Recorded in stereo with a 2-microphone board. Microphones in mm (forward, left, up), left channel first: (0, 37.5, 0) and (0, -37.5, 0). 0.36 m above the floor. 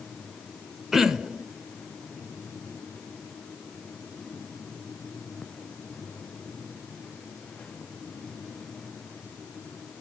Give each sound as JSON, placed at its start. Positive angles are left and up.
{"t": 0.9, "sound": "throat clearing", "side_deg": -5, "distance_m": 0.6}